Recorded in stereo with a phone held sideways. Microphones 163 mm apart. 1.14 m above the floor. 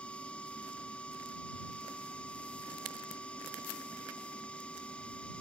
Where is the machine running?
5° left (ahead or behind).